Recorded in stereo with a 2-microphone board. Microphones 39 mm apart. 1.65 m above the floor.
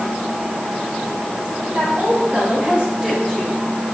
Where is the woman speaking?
40° right (ahead or behind), 4 m; by 3.6 s 5° right (ahead or behind), 3 m.